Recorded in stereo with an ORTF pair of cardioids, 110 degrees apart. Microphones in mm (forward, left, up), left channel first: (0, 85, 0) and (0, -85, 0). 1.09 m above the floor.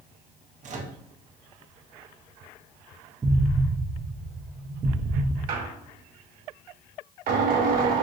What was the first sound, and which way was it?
A microwave, 45° right.